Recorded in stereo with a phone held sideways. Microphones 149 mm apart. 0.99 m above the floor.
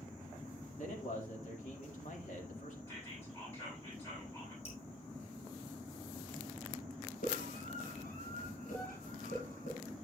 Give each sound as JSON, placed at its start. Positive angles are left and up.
{"t": 0.8, "sound": "a man speaking", "side_deg": 60, "distance_m": 2.0}
{"t": 2.9, "sound": "whispering", "side_deg": 20, "distance_m": 8.5}
{"t": 4.7, "sound": "dripping", "side_deg": 45, "distance_m": 4.0}
{"t": 7.2, "sound": "a scream", "side_deg": 75, "distance_m": 4.5}